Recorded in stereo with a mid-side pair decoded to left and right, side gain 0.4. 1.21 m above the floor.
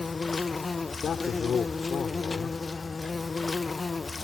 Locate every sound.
0.0 s an insect: 35° left
1.0 s a man speaking: 60° left